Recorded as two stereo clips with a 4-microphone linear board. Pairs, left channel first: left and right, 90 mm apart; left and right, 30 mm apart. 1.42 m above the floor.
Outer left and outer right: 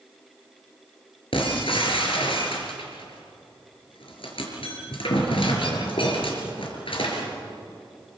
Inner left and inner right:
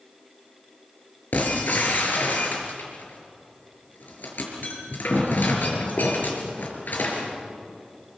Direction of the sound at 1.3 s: 75° left (ahead or behind).